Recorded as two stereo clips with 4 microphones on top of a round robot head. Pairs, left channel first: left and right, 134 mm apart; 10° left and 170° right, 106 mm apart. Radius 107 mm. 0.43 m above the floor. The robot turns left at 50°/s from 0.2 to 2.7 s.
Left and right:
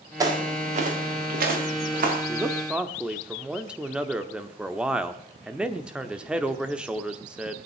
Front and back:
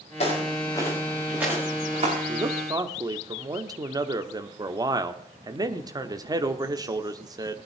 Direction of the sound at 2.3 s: 150° right.